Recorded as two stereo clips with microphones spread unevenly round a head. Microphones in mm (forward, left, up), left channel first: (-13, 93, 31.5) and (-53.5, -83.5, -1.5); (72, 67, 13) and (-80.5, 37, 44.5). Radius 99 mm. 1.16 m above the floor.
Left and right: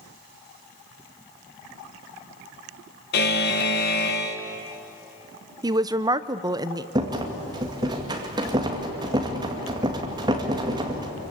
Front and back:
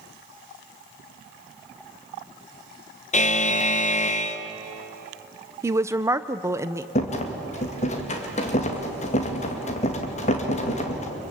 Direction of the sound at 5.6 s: 90° right.